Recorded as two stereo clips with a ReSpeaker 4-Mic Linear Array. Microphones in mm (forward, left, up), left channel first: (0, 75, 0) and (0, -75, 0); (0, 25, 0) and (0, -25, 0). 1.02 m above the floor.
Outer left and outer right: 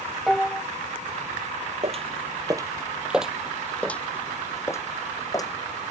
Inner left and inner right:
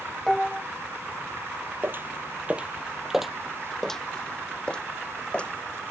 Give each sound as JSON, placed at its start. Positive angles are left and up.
{"t": 0.3, "sound": "dishes clattering", "side_deg": 0}
{"t": 1.8, "sound": "footsteps", "side_deg": -45}